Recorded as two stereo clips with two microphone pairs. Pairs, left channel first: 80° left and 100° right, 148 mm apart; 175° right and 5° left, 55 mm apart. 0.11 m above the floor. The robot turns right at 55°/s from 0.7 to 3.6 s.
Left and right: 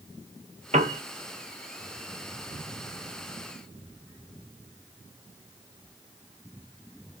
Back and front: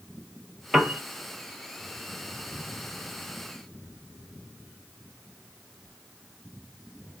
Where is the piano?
75° right, 0.6 m; by 1.0 s 60° right, 0.6 m.